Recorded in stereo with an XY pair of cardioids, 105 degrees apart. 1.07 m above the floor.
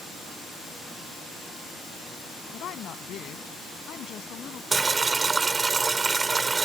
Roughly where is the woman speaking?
Ahead left.